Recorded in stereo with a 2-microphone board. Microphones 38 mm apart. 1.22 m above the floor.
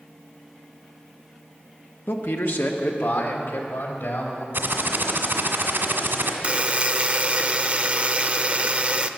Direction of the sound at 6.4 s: 35° right (ahead or behind).